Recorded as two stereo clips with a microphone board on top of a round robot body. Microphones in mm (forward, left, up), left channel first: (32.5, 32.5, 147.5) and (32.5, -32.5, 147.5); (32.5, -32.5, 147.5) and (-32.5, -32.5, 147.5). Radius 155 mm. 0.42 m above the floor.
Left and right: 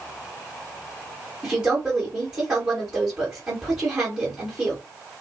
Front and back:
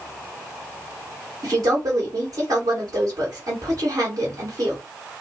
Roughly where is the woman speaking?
Behind right.